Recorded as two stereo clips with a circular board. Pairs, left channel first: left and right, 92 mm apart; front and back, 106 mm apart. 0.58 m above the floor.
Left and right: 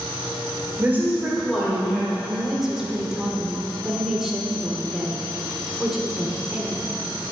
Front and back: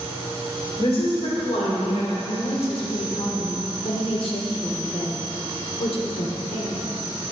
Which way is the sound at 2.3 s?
5° right.